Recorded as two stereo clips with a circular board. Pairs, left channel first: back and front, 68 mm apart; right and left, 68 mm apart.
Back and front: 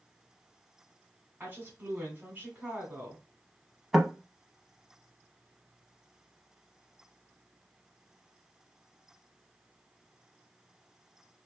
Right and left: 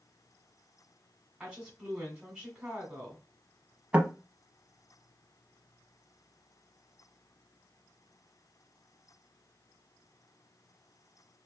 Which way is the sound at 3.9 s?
85° left.